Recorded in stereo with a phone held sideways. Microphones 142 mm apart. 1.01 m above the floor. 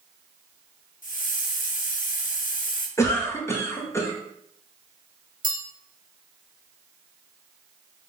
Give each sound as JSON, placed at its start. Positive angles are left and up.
{"t": 1.0, "sound": "a hiss", "side_deg": 70, "distance_m": 0.7}
{"t": 3.0, "sound": "a cough", "side_deg": 20, "distance_m": 0.9}
{"t": 5.4, "sound": "a bell", "side_deg": -70, "distance_m": 1.2}